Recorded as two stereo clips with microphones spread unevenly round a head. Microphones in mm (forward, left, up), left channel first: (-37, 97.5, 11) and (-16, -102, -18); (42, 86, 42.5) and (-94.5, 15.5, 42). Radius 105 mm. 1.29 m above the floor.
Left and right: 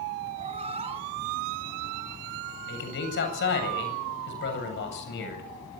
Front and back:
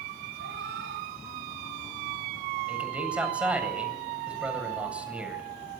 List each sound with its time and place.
0.4 s a cat meowing: 145° right, 3 m; by 2.2 s 155° right, 4 m
2.7 s a man speaking: 125° left, 8 m